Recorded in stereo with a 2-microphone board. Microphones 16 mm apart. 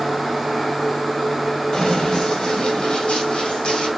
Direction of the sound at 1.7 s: 45° left (ahead or behind).